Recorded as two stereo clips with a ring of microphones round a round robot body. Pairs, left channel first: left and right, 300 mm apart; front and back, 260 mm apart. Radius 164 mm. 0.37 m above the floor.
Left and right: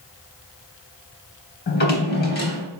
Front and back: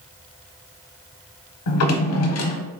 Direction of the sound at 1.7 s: 30° left.